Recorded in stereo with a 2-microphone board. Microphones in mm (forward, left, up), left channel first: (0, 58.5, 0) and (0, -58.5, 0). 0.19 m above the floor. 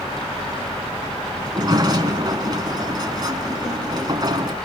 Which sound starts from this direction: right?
A sliding door, at 1.4 s.